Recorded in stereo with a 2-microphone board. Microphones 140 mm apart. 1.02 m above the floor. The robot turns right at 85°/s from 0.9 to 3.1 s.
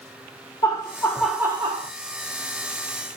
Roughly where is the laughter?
Behind left.